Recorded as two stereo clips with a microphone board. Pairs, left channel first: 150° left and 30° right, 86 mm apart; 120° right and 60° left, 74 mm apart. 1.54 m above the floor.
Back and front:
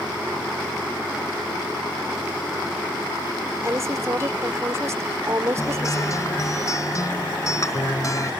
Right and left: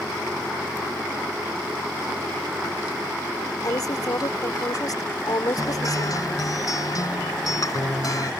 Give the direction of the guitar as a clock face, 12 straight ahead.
5 o'clock.